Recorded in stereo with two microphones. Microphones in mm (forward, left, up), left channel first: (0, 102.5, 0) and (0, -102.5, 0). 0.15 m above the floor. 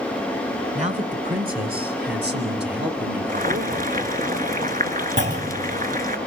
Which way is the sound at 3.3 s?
45° right (ahead or behind).